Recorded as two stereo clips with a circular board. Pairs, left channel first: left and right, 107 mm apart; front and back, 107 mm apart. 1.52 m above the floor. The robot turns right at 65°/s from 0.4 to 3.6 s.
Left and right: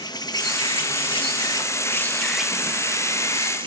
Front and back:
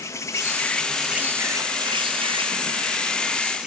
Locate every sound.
0.0 s an insect: 55° left, 1.0 m; by 3.7 s 100° right, 1.0 m